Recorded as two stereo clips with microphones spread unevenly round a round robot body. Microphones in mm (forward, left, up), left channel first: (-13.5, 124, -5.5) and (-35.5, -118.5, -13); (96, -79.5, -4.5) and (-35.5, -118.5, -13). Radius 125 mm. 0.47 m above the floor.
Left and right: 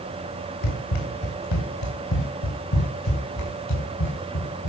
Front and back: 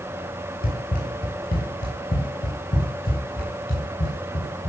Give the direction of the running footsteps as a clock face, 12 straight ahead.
10 o'clock.